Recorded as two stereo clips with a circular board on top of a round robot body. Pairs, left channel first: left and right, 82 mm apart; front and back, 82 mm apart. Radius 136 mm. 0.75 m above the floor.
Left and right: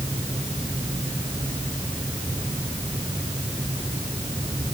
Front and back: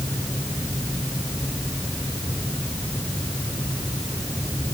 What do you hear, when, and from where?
Only background noise.